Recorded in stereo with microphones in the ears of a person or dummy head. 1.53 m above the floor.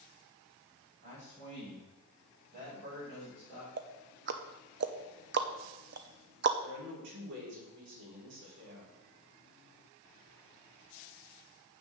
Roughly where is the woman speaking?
Right.